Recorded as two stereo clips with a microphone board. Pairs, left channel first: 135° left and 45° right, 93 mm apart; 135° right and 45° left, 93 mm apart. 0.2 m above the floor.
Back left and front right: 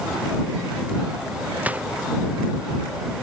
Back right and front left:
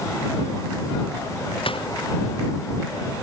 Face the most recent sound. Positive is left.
turn(degrees=-120)